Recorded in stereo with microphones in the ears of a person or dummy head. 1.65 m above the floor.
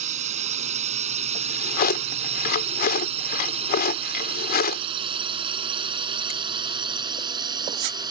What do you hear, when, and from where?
0.0 s a drone: 50° right (ahead or behind); by 8.1 s 30° right (ahead or behind)
1.4 s a drawer: 55° left (ahead or behind)